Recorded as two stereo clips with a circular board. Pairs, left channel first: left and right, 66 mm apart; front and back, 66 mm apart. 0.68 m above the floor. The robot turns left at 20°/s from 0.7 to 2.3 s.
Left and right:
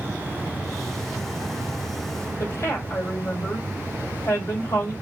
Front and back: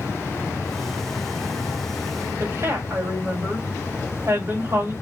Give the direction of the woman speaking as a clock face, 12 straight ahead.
7 o'clock.